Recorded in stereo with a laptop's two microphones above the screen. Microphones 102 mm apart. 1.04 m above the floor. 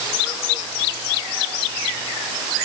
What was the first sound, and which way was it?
Only background noise.